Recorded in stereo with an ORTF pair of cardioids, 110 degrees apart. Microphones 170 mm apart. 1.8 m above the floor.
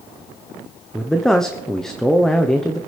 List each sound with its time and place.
0.9 s a man speaking: 5° left, 1.0 m